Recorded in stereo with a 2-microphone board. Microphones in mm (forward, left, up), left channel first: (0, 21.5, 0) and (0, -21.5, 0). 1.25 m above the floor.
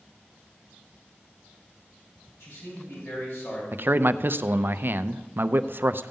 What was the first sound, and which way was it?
A man speaking, 75° left (ahead or behind).